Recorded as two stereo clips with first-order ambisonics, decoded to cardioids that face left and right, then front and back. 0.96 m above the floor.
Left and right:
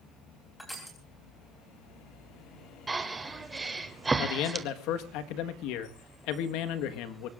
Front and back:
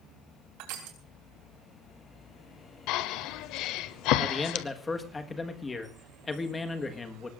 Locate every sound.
0.6 s crushing: 175° left, 3.5 m
2.9 s breathing: 15° right, 1.0 m
4.2 s a man speaking: 75° left, 1.4 m